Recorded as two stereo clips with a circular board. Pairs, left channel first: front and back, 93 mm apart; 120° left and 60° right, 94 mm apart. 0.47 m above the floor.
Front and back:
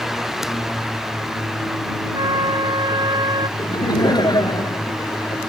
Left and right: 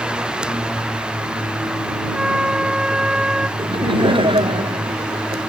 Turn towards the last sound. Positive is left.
turn(degrees=-40)